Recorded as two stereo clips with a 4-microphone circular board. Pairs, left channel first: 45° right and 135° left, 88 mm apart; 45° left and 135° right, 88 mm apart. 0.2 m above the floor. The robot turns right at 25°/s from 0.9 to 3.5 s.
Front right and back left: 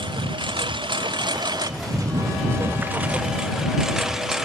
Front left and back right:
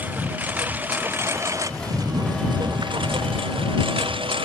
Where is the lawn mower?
155° left; by 4.5 s 140° right.